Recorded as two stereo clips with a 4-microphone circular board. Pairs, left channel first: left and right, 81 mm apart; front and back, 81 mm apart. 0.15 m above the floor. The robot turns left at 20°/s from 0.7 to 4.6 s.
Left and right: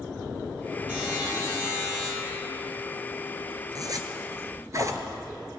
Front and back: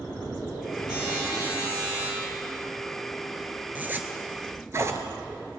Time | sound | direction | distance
0.9 | a buzzer | 20° right | 4.5 m
3.8 | a zipper | 115° right | 0.8 m